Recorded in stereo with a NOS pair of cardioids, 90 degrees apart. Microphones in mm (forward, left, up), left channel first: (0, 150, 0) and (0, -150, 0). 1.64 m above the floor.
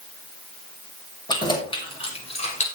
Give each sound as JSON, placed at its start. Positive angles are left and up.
{"t": 1.3, "sound": "keys jangling", "azimuth_deg": 15, "distance_m": 6.0}